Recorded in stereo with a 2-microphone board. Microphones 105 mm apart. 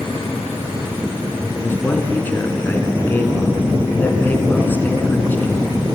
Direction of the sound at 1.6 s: 20° left (ahead or behind).